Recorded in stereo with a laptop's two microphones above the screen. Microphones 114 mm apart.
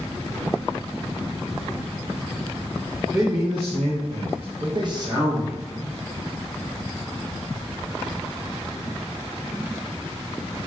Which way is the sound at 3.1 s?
25° right (ahead or behind).